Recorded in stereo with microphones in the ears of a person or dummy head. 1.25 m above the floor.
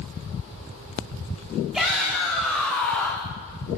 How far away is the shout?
About 2.5 m.